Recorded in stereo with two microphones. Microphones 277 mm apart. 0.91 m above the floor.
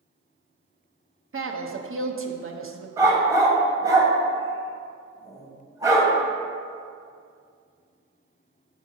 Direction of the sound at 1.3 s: 50° right (ahead or behind).